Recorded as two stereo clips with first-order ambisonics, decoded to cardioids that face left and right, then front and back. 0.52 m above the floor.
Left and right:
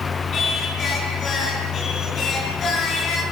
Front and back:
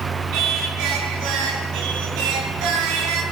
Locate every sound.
0.3 s singing: 150° left, 6 m